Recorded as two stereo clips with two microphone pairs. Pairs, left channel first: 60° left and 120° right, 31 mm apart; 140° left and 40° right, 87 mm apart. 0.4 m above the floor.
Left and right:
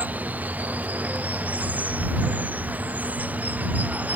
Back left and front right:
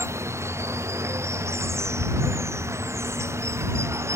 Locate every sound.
0.0 s running water: 95° right